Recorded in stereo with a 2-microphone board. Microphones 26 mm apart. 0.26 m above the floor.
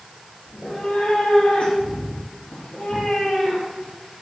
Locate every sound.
0.5 s a cat meowing: 75° left (ahead or behind), 3.5 m